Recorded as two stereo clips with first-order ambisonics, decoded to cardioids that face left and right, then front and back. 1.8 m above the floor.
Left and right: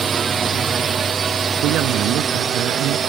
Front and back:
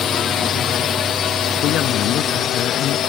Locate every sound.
0.0 s a drone: 40° right
1.6 s a woman speaking: 50° right